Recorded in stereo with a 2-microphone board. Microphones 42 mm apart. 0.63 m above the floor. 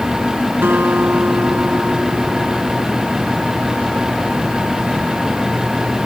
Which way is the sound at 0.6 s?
65° right (ahead or behind).